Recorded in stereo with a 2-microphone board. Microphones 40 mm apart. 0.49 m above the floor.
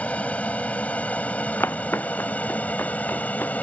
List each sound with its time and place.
0.0 s an aircraft: 35° left (ahead or behind); by 3.6 s 40° left (ahead or behind)
1.6 s footsteps: 80° left; by 3.5 s 65° left (ahead or behind)